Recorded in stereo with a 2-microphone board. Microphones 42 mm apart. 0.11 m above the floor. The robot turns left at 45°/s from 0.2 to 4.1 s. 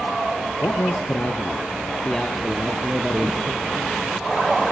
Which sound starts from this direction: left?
A man speaking, at 0.6 s.